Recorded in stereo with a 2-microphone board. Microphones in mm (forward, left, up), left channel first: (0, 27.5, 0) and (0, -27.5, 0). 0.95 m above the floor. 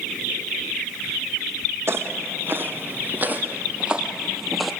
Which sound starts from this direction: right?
Footsteps, at 1.9 s.